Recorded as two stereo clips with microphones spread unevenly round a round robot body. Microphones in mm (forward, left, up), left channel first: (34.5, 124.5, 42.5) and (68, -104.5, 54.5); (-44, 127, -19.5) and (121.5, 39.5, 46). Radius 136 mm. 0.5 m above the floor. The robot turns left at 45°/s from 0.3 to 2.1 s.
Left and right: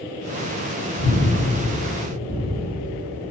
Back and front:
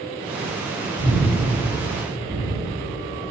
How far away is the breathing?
About 3.5 m.